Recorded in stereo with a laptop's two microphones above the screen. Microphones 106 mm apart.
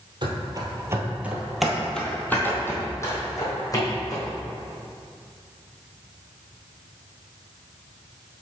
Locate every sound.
0.2 s running footsteps: 45° right (ahead or behind), 1.5 m; by 4.3 s 35° left (ahead or behind), 3 m